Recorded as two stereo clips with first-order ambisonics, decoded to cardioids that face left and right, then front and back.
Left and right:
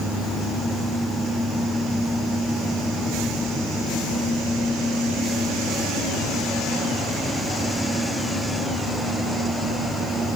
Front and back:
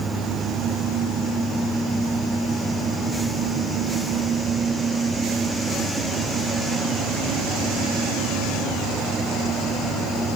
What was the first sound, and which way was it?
Only background noise.